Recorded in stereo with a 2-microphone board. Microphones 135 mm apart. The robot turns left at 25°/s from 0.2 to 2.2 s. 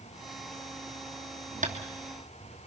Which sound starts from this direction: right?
Tapping, at 1.6 s.